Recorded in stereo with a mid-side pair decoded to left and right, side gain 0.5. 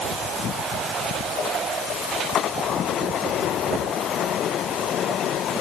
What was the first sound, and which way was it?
Only background noise.